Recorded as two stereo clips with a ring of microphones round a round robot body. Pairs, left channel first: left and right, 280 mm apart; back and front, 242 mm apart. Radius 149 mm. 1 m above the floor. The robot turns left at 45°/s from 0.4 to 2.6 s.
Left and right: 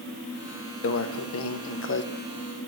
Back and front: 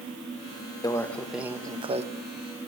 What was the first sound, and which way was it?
A microwave, 110° left.